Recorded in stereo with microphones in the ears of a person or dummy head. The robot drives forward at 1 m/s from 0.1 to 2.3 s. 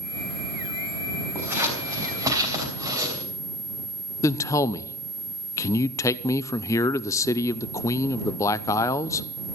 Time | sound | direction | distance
1.4 | scissors | 15° right (ahead or behind) | 4 m
4.2 | a man speaking | 20° left (ahead or behind) | 0.5 m